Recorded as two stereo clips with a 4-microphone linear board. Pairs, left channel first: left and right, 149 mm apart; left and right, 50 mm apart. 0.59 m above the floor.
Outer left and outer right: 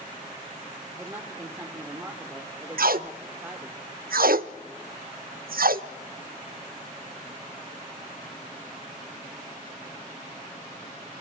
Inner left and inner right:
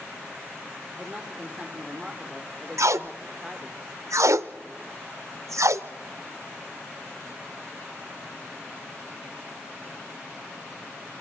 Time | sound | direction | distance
1.0 | a woman speaking | 15° right (ahead or behind) | 1.3 m
2.8 | tape being pulled | 80° right | 0.5 m